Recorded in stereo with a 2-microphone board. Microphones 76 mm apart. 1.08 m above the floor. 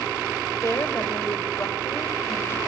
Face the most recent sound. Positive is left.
turn(degrees=35)  # may be behind; listen again after turning